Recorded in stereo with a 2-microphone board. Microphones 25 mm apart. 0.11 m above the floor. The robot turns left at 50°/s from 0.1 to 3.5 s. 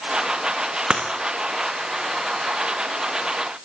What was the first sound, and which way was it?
Breaking glass, 35° right (ahead or behind).